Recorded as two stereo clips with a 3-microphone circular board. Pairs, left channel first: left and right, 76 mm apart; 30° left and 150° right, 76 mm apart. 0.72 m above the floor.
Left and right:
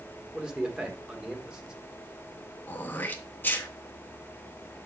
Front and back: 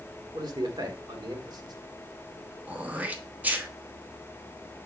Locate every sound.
0.3 s a man speaking: 170° right, 1.6 m
2.7 s throat clearing: 145° left, 1.0 m